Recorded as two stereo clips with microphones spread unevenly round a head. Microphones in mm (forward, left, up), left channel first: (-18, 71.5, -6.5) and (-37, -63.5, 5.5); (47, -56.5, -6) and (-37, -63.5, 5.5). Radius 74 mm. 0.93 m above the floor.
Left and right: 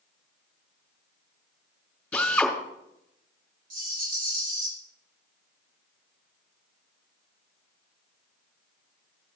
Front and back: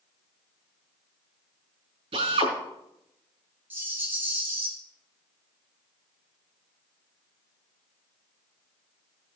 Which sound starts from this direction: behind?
A drill, at 2.1 s.